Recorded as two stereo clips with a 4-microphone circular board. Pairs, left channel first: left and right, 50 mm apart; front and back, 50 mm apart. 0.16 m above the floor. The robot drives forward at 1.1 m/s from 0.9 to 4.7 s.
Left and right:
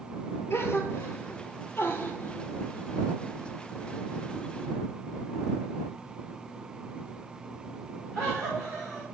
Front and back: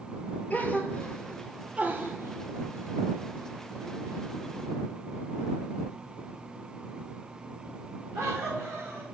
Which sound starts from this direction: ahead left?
A gasp, at 0.5 s.